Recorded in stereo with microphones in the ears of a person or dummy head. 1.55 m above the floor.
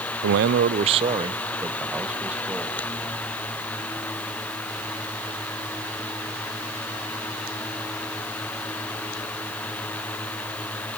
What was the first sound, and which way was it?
A man speaking, 65° right (ahead or behind).